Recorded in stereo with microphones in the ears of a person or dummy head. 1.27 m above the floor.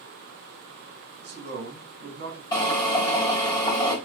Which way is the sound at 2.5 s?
30° left (ahead or behind).